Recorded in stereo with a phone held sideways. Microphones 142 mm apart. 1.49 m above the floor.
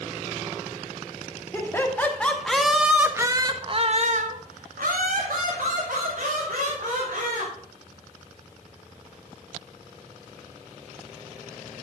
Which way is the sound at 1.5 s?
20° left (ahead or behind).